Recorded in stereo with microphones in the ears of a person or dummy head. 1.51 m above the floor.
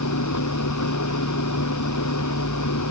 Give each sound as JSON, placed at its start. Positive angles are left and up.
{"t": 0.0, "sound": "an engine running", "side_deg": 90}